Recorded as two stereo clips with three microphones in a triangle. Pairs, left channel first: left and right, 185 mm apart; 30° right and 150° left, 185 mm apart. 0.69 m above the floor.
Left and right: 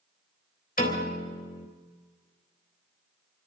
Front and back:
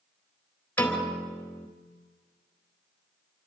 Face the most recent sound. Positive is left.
turn(degrees=50)